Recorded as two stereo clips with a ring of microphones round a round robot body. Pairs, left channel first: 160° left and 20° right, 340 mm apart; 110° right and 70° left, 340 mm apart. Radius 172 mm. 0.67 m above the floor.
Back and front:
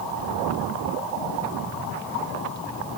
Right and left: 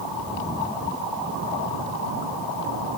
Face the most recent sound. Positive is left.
No sound to turn to.